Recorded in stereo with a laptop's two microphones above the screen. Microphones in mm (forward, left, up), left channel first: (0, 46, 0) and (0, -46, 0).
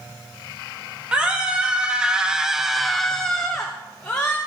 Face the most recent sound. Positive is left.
turn(degrees=10)  # may be behind; listen again after turning